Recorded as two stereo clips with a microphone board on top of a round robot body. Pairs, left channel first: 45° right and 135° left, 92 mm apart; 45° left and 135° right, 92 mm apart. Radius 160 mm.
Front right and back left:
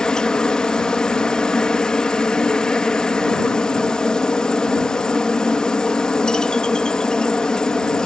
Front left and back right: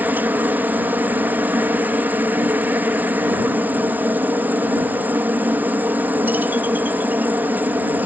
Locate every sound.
0.0 s a helicopter: 110° right